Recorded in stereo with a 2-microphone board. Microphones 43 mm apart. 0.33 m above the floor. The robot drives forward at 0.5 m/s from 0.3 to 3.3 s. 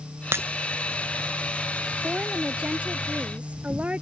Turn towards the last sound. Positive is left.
turn(degrees=-30)  # may be behind; listen again after turning